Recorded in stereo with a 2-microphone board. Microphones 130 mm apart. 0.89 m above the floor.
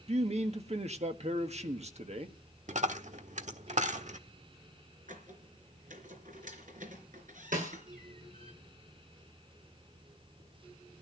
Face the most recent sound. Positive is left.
turn(degrees=-85)